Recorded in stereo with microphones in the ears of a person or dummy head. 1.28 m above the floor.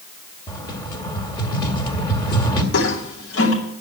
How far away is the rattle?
About 2.0 m.